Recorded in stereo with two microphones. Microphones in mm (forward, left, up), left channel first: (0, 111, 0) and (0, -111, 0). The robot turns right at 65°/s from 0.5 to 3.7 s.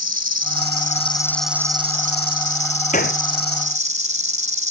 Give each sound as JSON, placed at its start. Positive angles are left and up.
{"t": 0.0, "sound": "an insect", "azimuth_deg": 120}
{"t": 2.9, "sound": "a gunshot", "side_deg": 35}